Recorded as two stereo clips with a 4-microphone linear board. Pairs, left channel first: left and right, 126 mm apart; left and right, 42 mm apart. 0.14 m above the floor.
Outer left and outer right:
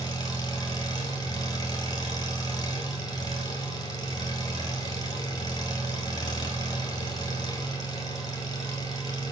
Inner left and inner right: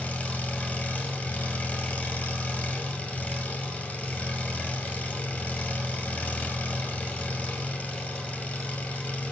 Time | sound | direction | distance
0.0 | an engine running | 30° left (ahead or behind) | 1.9 m